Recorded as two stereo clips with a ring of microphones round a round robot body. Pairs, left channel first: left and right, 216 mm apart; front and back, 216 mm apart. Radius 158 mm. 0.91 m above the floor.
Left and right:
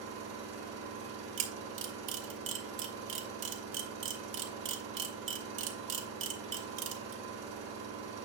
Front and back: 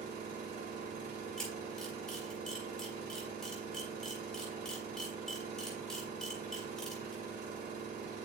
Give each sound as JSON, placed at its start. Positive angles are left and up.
{"t": 0.0, "sound": "an engine running", "azimuth_deg": -135, "distance_m": 2.5}
{"t": 1.4, "sound": "a camera shutter", "azimuth_deg": -85, "distance_m": 1.5}